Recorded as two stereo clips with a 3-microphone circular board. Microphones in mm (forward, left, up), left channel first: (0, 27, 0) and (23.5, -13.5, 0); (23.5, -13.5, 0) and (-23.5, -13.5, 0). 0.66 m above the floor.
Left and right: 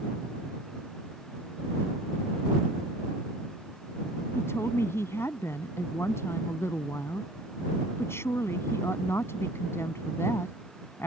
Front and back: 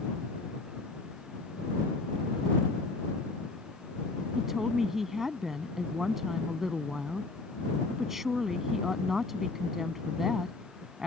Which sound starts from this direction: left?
A woman speaking, at 4.3 s.